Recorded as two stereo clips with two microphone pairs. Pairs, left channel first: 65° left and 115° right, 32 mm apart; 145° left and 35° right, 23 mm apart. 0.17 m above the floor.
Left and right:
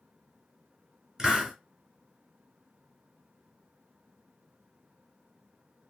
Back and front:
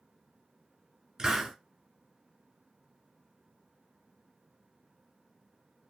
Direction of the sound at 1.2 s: 65° right.